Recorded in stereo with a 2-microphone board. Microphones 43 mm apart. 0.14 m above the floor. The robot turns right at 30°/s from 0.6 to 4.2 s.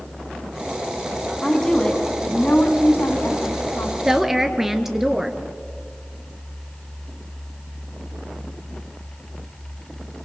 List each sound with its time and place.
1.4 s a woman speaking: 5° left, 5.5 m; by 4.0 s 85° left, 5.5 m
4.0 s a woman speaking: 15° right (ahead or behind), 2 m; by 5.4 s 10° right (ahead or behind), 2 m